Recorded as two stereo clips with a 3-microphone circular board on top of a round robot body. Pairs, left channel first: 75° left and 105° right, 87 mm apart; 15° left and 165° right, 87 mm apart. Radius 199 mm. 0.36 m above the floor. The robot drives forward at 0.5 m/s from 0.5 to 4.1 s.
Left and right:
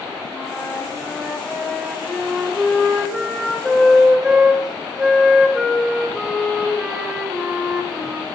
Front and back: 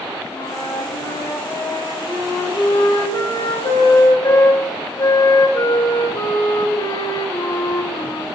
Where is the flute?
10° right, 3.5 m; by 8.2 s 20° right, 1.8 m.